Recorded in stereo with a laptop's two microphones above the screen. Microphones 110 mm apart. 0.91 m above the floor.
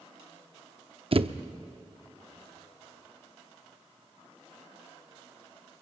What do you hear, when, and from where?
1.1 s a thud: 55° right (ahead or behind), 0.6 m